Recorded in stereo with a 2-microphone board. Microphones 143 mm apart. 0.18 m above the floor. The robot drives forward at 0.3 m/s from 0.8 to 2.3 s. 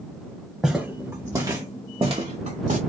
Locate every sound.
0.6 s footsteps: centre (ahead or behind), 0.9 m; by 2.8 s 60° right (ahead or behind), 1.1 m